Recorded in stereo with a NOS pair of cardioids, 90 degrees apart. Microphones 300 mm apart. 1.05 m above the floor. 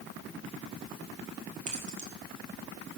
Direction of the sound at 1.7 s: 25° right.